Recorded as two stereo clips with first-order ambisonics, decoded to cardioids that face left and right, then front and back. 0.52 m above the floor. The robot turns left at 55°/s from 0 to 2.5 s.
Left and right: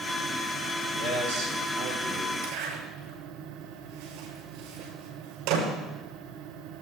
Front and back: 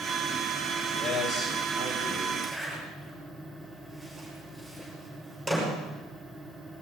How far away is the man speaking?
About 7.5 m.